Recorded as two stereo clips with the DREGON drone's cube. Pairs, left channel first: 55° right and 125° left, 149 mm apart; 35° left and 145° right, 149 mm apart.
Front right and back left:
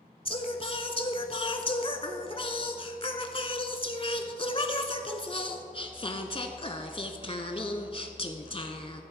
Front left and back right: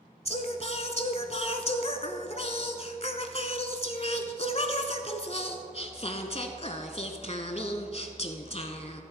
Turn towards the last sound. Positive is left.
turn(degrees=-5)